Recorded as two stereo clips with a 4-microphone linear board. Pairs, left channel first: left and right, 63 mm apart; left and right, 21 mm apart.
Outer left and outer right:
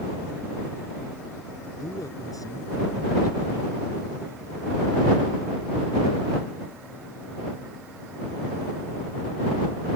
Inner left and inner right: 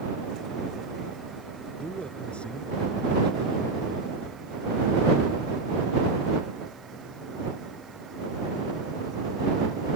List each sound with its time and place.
1.8 s a man speaking: 90° left